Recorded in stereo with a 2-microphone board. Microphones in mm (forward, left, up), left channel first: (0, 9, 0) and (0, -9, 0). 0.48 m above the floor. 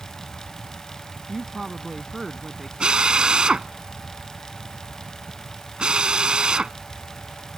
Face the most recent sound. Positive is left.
turn(degrees=-50)  # may be behind; listen again after turning